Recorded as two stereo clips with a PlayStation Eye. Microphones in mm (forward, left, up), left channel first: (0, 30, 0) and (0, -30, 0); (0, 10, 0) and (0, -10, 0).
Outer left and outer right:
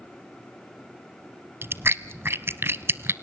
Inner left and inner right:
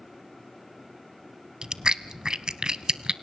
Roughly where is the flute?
No flute in this recording.